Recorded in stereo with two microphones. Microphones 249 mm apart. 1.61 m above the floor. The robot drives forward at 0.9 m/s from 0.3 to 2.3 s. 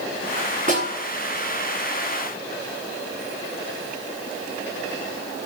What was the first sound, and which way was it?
A snare drum, 30° right (ahead or behind).